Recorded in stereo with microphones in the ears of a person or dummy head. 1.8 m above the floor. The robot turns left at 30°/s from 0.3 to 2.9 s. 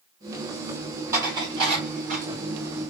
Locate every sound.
1.1 s dishes clattering: 20° right (ahead or behind), 3 m; by 2.3 s 50° right (ahead or behind), 3 m